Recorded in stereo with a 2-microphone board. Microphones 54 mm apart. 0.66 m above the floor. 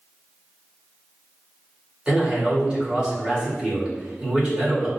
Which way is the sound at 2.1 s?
20° right (ahead or behind).